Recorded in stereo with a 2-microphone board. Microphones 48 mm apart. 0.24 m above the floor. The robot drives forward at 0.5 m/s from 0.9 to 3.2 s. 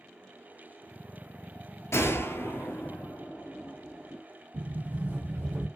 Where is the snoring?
No snoring in this recording.